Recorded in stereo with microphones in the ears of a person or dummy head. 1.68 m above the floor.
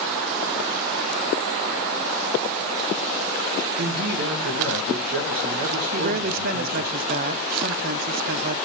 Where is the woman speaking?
50° right (ahead or behind), 0.5 m.